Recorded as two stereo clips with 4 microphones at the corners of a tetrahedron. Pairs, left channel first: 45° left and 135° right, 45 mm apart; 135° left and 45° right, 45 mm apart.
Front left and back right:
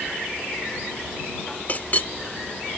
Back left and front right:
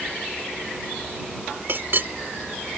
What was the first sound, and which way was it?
A clink, 5° right.